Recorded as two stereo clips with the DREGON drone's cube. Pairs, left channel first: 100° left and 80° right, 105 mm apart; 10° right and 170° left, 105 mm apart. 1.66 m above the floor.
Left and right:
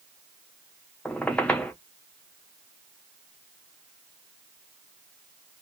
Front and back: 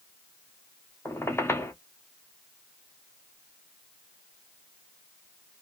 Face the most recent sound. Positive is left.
turn(degrees=30)